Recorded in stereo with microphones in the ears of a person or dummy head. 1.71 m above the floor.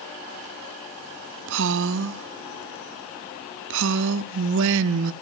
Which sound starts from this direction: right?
A woman speaking, at 1.5 s.